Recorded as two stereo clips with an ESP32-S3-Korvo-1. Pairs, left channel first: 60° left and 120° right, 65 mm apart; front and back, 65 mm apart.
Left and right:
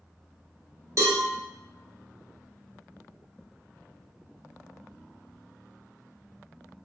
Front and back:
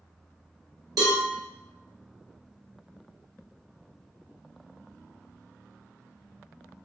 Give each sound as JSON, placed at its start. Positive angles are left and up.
{"t": 1.0, "sound": "a cowbell", "azimuth_deg": -165, "distance_m": 1.2}